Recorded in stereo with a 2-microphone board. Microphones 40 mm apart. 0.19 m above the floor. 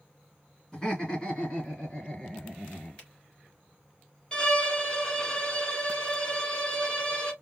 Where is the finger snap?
25° left (ahead or behind), 3 m.